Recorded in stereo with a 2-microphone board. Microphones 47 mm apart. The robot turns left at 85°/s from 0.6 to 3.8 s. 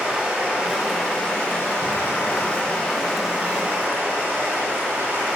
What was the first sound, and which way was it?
Running water, 155° right.